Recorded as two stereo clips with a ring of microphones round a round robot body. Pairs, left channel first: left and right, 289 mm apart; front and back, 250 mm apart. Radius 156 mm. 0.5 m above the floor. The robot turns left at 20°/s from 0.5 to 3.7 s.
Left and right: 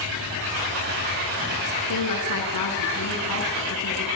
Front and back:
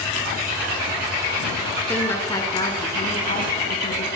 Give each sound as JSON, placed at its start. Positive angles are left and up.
{"t": 1.9, "sound": "a woman speaking", "azimuth_deg": 85, "distance_m": 5.5}